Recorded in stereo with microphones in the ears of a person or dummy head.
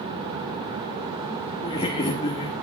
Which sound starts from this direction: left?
Laughter, at 1.6 s.